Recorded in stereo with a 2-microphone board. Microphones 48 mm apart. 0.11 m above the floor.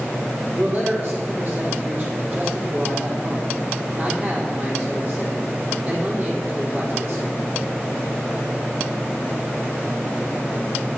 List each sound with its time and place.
0.5 s a man speaking: 40° right (ahead or behind), 5 m